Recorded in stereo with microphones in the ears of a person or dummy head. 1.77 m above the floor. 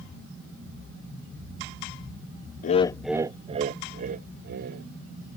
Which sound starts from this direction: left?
Laughter, at 2.6 s.